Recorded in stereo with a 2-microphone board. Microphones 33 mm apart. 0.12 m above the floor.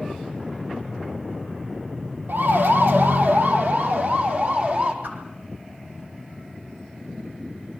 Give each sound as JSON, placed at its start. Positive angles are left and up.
{"t": 2.3, "sound": "a siren", "side_deg": -70, "distance_m": 3.0}
{"t": 5.0, "sound": "a whoosh", "side_deg": -65, "distance_m": 5.0}